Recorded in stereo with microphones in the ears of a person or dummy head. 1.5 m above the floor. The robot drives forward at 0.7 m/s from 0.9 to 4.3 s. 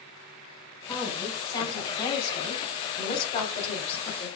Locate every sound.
0.9 s a woman speaking: 20° left (ahead or behind), 5 m; by 4.3 s 35° left (ahead or behind), 3 m